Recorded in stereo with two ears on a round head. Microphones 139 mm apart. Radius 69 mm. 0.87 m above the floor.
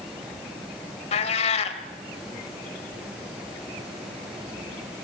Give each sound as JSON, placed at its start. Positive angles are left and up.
{"t": 1.1, "sound": "a cat meowing", "side_deg": 40, "distance_m": 1.8}